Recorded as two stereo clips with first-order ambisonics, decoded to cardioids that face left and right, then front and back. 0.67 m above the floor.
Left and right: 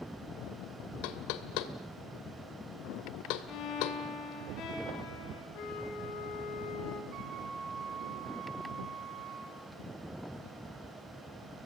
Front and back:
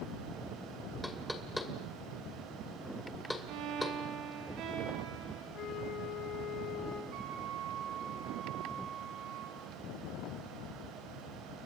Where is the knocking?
85° left, 2 m.